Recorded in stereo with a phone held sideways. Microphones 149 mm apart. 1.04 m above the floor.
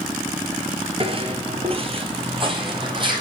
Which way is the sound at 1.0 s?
40° right (ahead or behind).